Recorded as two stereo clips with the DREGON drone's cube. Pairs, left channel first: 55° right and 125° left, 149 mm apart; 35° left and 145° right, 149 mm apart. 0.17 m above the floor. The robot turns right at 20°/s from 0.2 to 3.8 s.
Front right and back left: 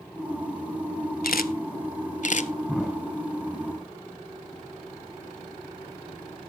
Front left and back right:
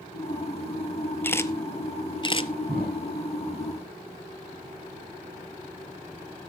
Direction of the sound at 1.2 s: 40° right.